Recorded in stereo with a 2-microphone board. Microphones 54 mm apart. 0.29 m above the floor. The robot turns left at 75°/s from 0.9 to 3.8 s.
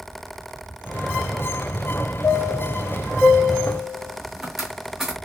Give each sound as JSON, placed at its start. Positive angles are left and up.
{"t": 2.2, "sound": "a chime", "side_deg": 55, "distance_m": 1.8}